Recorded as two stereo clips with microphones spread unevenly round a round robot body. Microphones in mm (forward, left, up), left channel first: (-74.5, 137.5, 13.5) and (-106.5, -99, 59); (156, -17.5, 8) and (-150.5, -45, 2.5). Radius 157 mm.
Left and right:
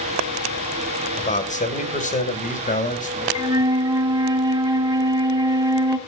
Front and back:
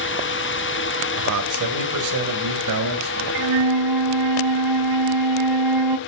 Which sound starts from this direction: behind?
A flute, at 3.4 s.